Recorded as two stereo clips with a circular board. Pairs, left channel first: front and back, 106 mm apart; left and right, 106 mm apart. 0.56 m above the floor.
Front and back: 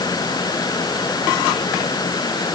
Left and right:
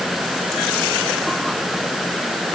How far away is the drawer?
I don't hear a drawer.